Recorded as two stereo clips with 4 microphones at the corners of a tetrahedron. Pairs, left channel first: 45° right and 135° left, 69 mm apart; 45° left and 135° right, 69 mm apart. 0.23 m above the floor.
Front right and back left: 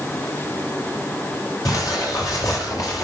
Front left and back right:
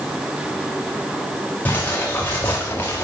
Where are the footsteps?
15° right, 4 m.